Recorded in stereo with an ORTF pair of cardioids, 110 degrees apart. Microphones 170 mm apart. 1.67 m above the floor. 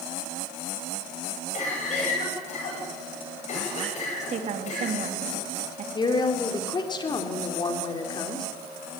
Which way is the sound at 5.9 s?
30° left.